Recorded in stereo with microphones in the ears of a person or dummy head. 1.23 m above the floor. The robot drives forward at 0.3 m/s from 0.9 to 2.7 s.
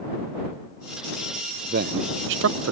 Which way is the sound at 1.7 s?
50° right (ahead or behind).